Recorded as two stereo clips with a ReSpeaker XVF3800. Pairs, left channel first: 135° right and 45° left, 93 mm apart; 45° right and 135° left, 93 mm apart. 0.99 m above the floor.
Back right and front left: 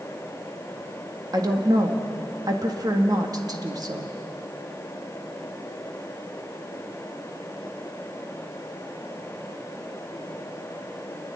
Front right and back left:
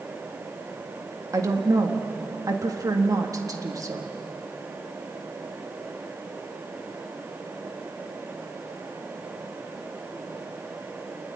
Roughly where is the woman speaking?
Left.